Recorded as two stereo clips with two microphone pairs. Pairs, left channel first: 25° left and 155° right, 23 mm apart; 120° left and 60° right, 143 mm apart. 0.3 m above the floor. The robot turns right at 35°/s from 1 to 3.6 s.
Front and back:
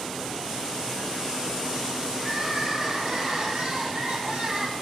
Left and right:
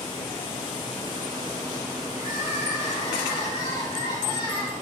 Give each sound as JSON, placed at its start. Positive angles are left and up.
{"t": 2.2, "sound": "crying", "azimuth_deg": 135, "distance_m": 6.5}